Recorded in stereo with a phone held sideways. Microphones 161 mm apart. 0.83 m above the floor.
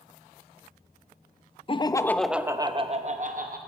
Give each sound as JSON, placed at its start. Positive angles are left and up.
{"t": 1.7, "sound": "laughter", "side_deg": 35, "distance_m": 0.6}